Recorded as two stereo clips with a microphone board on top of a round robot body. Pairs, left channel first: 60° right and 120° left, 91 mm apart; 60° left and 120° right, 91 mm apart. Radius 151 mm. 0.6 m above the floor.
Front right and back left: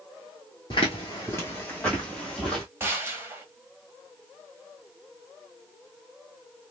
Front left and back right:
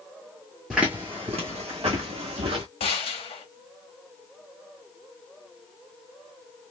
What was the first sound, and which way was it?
Footsteps, 30° right.